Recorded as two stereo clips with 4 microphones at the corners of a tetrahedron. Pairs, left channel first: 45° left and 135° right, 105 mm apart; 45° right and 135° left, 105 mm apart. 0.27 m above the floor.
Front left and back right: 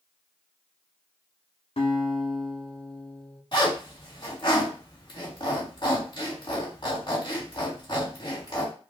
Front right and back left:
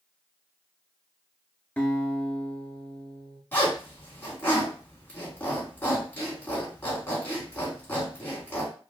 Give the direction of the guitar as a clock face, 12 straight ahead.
11 o'clock.